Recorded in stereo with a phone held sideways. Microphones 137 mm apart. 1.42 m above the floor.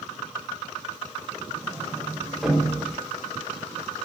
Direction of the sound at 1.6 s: Centre (ahead or behind).